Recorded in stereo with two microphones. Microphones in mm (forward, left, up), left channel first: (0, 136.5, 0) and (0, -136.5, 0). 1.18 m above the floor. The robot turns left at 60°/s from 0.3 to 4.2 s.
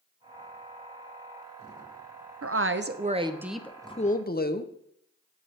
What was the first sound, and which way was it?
A woman speaking, 110° right.